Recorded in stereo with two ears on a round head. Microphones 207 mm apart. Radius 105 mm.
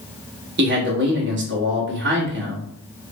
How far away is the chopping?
I don't hear chopping.